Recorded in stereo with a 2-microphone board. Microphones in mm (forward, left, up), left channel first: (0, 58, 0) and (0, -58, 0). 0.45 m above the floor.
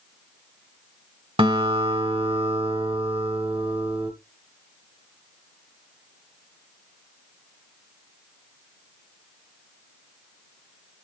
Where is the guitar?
50° right (ahead or behind), 1.6 m.